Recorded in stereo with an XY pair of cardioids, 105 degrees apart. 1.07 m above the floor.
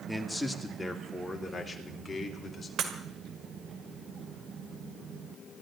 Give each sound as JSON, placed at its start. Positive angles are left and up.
{"t": 0.1, "sound": "a man speaking", "azimuth_deg": 5, "distance_m": 2.0}
{"t": 2.8, "sound": "breaking glass", "azimuth_deg": -70, "distance_m": 2.0}